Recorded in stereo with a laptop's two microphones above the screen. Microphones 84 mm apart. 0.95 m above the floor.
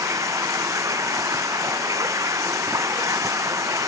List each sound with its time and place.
0.0 s running water: 40° right (ahead or behind)